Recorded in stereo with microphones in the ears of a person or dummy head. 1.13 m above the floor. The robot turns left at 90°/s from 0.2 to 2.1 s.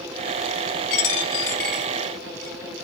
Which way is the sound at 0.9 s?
50° left (ahead or behind).